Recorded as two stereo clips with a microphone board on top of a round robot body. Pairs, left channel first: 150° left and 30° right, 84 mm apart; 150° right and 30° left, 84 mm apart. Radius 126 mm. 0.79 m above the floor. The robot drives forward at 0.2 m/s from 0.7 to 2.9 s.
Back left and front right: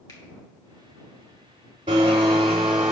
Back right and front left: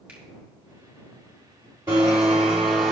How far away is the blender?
About 0.6 m.